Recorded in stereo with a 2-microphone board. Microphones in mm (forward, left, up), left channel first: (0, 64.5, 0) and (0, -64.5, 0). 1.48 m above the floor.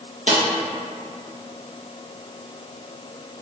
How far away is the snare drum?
About 1.4 m.